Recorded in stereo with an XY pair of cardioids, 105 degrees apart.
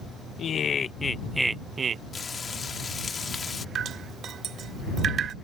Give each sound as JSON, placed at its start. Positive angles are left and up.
{"t": 0.4, "sound": "laughter", "azimuth_deg": 60}
{"t": 2.1, "sound": "frying", "azimuth_deg": 40}
{"t": 3.8, "sound": "dripping", "azimuth_deg": -55}